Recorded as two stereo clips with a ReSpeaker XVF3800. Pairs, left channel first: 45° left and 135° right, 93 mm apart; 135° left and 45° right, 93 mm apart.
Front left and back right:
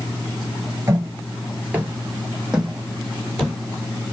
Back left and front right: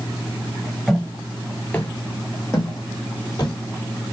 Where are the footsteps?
130° right, 1.6 m; by 3.6 s 130° left, 2 m.